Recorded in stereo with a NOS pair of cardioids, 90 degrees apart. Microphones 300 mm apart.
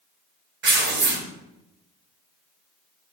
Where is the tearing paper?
40° right, 3 m.